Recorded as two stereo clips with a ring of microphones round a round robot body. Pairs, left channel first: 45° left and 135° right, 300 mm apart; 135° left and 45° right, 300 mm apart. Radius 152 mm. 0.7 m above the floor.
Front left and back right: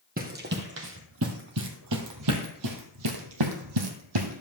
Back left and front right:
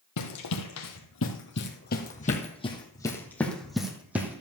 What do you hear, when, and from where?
0.2 s running footsteps: 165° left, 2 m; by 4.4 s 125° right, 2.5 m